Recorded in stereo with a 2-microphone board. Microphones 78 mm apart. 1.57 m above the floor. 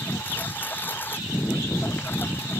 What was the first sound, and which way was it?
A lawn mower, 25° left (ahead or behind).